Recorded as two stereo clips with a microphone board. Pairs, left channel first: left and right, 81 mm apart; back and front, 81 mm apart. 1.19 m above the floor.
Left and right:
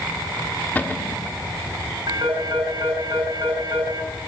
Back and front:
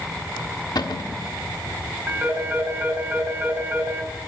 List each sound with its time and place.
0.8 s a cupboard door: 155° left, 1.3 m
2.1 s a phone ringing: 60° right, 4.5 m